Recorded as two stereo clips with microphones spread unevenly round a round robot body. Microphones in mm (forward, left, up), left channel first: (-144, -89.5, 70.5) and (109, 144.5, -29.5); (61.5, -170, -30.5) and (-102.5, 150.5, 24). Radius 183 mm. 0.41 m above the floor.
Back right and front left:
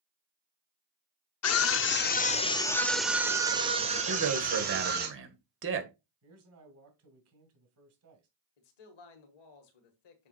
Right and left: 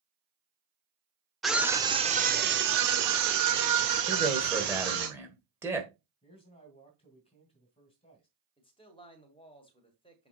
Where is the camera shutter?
No camera shutter in this recording.